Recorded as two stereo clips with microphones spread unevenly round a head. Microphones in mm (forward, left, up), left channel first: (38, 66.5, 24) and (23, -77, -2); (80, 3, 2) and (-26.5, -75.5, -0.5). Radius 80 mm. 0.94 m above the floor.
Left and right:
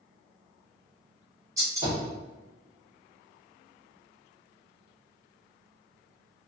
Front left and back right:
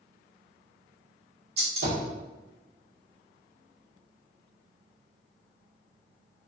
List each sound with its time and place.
1.6 s a gunshot: 170° right, 1.6 m